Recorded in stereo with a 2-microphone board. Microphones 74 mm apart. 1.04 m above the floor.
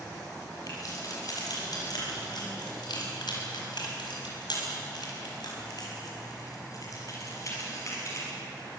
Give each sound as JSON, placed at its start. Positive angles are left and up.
{"t": 0.7, "sound": "keys jangling", "side_deg": 55, "distance_m": 6.0}